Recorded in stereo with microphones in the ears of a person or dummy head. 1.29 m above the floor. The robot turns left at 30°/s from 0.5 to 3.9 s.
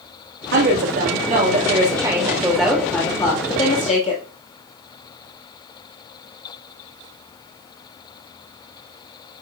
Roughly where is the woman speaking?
Behind right.